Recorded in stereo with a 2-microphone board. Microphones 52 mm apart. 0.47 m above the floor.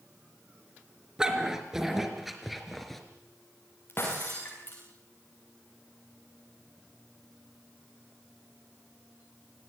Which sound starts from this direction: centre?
A dog barking, at 1.2 s.